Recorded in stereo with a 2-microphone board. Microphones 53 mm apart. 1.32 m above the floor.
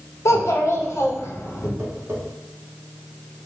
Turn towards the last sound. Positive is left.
turn(degrees=-55)  # may be behind; listen again after turning